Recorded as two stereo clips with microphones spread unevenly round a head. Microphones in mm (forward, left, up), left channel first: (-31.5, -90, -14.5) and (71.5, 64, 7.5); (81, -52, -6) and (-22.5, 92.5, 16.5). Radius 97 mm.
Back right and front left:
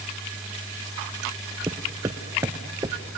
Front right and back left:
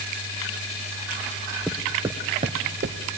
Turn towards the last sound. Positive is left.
turn(degrees=120)